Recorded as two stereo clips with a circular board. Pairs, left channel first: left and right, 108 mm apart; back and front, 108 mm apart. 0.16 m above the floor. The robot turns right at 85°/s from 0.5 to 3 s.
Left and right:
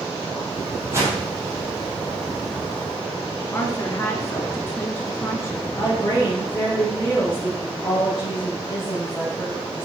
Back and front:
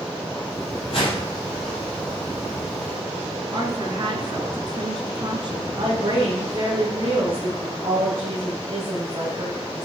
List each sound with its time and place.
0.9 s a whoosh: 160° right, 4.5 m; by 1.2 s 130° right, 4.5 m
3.5 s a woman speaking: 25° left, 2.5 m
5.8 s a woman speaking: 25° left, 5.5 m